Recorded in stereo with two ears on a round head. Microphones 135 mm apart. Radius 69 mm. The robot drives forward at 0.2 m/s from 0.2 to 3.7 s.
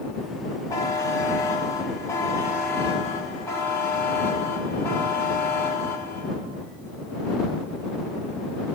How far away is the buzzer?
About 1.9 m.